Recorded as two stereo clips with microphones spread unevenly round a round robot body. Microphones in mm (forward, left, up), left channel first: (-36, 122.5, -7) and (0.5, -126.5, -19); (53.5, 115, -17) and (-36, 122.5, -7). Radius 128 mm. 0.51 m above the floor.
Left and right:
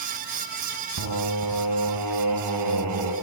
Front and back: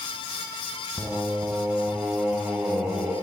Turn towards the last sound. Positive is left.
turn(degrees=-95)